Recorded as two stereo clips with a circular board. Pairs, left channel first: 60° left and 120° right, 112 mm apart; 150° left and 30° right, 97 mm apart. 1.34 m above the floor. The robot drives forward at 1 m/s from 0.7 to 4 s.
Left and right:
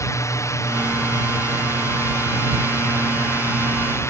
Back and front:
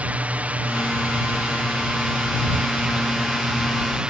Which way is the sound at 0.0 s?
30° left.